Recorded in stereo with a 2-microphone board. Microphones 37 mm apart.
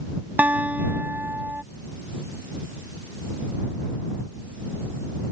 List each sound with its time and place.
0.4 s a guitar: 55° right (ahead or behind)